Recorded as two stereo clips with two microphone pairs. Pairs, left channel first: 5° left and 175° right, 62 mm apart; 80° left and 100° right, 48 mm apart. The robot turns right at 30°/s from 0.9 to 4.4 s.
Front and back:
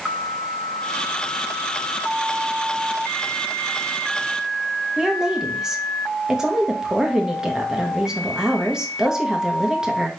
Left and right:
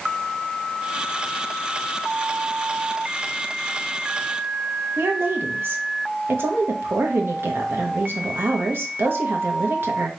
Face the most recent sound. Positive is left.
turn(degrees=-100)